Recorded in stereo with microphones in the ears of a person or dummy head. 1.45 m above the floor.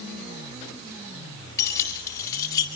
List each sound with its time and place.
1.6 s keys jangling: 20° left (ahead or behind), 4.5 m; by 2.7 s 25° left (ahead or behind), 4 m